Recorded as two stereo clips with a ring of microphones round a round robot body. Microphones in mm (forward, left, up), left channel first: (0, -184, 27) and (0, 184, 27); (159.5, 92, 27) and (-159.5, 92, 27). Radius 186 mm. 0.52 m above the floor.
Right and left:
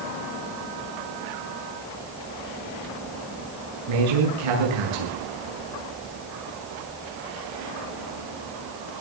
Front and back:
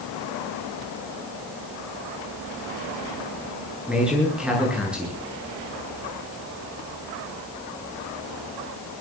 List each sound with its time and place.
3.9 s a man speaking: 95° left, 8.5 m